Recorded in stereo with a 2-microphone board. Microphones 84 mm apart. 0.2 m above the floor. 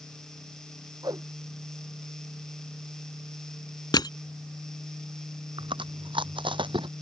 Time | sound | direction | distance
1.0 | a whoosh | 50° right (ahead or behind) | ?
3.9 | crushing | 55° left (ahead or behind) | ?
5.6 | chewing | 75° right (ahead or behind) | ?